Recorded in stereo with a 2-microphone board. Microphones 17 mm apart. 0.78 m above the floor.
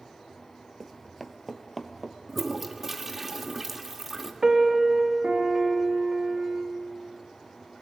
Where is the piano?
35° right (ahead or behind), 1.3 m.